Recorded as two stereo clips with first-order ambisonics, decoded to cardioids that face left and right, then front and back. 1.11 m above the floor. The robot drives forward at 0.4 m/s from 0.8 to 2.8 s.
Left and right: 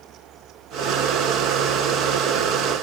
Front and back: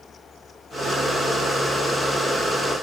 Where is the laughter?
No laughter in this recording.